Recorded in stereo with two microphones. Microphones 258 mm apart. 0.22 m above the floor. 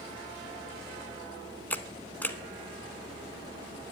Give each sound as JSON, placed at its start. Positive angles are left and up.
{"t": 1.7, "sound": "a camera shutter", "side_deg": 5, "distance_m": 0.6}